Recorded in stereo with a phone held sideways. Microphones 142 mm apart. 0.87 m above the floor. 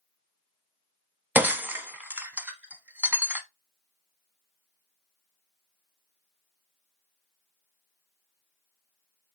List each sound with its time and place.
1.4 s breaking glass: 10° right (ahead or behind), 0.8 m